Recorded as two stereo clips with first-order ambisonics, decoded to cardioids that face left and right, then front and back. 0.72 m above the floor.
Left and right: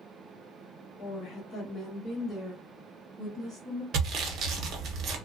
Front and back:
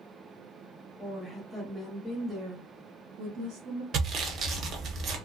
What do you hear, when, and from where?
1.0 s a woman speaking: 60° left, 1.1 m; by 3.8 s 155° right, 1.3 m
3.9 s sawing: 130° right, 0.6 m